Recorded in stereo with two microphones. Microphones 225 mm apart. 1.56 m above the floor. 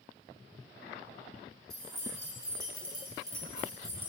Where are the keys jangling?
60° right (ahead or behind), 1.6 m; by 4.1 s 10° right (ahead or behind), 1.4 m.